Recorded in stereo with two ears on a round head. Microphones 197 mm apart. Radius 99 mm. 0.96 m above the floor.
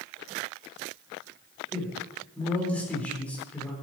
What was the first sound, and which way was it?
A man speaking, 5° left (ahead or behind).